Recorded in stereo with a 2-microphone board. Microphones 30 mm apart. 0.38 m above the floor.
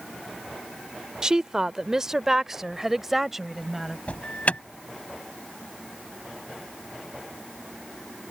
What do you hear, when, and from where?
1.2 s a woman speaking: 25° right (ahead or behind); by 4.0 s 10° right (ahead or behind)
4.1 s an alarm: 50° left (ahead or behind)